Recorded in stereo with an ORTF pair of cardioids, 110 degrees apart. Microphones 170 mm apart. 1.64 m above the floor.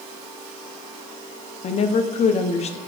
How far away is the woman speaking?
About 1.1 m.